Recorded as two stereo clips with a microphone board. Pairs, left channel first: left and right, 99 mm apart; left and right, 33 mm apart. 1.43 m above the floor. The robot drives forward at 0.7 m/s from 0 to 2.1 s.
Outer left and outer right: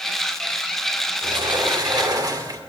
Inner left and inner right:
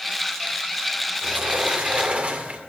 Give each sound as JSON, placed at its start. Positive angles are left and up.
{"t": 1.2, "sound": "a sliding door", "side_deg": -55, "distance_m": 1.7}